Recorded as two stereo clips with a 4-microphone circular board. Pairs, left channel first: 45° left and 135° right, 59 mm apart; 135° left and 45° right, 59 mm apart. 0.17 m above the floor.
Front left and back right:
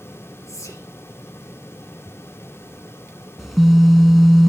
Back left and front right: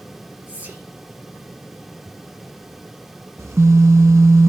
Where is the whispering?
15° left, 3.5 m.